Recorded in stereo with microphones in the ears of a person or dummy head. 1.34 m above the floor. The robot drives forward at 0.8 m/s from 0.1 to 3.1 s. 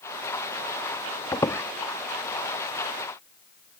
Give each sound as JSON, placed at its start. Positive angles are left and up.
{"t": 1.3, "sound": "a squeak", "side_deg": 15}